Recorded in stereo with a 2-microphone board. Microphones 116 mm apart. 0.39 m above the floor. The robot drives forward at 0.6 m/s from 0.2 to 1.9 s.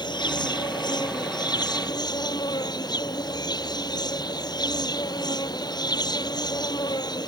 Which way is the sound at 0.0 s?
40° left (ahead or behind).